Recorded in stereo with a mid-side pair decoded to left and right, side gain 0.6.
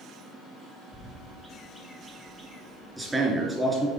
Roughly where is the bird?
Ahead.